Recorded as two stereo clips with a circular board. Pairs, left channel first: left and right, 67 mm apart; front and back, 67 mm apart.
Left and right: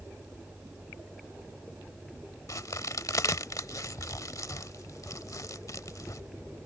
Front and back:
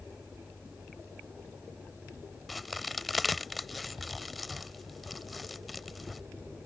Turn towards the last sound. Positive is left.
turn(degrees=90)